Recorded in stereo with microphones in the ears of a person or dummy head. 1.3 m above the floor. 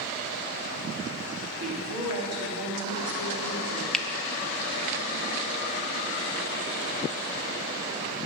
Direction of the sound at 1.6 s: 85° right.